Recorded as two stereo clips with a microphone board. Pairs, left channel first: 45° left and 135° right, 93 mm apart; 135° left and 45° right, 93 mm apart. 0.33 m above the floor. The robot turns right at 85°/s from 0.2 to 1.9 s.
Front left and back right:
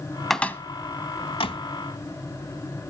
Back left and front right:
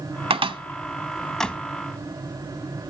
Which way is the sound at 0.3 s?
45° right.